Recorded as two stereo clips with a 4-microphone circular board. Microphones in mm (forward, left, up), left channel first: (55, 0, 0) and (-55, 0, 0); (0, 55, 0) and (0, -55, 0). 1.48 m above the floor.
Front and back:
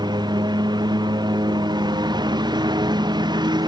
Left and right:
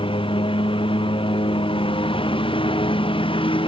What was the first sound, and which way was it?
A lawn mower, 130° left.